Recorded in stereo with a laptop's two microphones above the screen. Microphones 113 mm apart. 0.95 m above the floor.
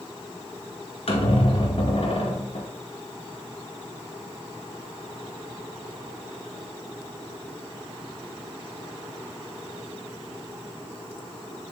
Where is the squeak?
60° left (ahead or behind), 1.9 m.